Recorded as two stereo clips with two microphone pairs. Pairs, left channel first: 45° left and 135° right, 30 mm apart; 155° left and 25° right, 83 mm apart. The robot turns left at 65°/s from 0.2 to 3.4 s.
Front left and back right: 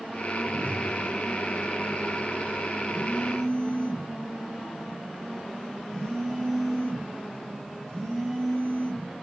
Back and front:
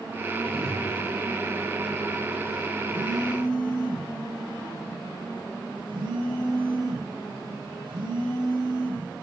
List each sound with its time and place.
0.4 s a whoosh: 155° right, 5 m; by 0.9 s 175° left, 5 m
2.9 s a phone buzzing: 5° left, 3 m; by 9.1 s 30° right, 3 m